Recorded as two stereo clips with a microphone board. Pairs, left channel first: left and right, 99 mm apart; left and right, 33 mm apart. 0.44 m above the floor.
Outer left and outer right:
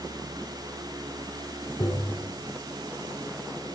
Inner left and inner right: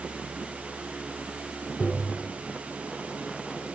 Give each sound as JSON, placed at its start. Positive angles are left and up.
{"t": 1.8, "sound": "tapping", "side_deg": 40, "distance_m": 4.5}